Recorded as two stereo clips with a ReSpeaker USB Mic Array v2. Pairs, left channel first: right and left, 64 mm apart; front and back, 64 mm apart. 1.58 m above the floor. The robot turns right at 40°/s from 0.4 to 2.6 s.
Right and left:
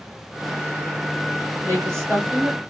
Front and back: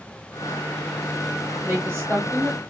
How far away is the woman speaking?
About 1.7 m.